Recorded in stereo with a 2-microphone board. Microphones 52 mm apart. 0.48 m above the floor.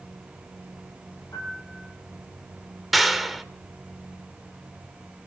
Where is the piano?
80° left, 7.5 m.